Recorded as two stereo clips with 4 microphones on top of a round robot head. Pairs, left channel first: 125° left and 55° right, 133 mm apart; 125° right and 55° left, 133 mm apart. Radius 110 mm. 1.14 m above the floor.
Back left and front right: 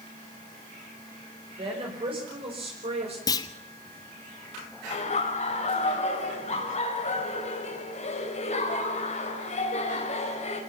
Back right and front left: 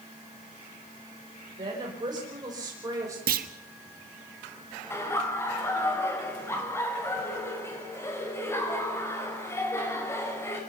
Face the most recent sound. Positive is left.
turn(degrees=165)